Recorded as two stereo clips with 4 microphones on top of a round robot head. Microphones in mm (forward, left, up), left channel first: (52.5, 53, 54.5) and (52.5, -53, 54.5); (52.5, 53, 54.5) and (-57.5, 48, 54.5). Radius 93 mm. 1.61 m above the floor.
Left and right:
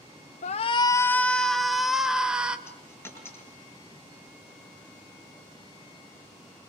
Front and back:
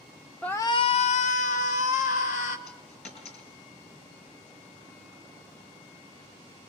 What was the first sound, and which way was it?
A shout, 85° left.